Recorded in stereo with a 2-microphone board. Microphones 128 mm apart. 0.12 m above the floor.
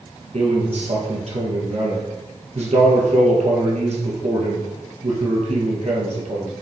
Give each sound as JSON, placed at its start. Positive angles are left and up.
{"t": 0.3, "sound": "a man speaking", "side_deg": -60, "distance_m": 3.5}